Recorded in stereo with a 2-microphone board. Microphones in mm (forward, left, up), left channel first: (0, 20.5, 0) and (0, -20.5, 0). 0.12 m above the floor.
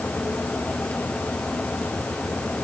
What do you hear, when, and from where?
Only background noise.